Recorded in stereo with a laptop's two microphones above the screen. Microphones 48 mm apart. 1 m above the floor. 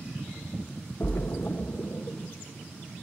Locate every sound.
1.0 s a splash: 70° left (ahead or behind), 0.8 m